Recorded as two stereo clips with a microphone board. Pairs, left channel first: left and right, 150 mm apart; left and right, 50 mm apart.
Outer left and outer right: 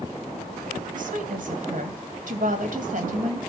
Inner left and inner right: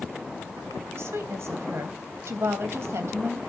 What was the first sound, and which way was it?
A woman speaking, 65° right (ahead or behind).